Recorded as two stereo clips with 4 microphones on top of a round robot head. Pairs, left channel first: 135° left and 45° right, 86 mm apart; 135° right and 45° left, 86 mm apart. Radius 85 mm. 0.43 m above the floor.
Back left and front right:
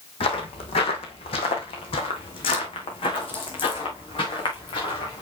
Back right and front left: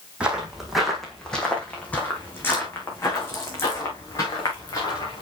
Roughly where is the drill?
No drill in this recording.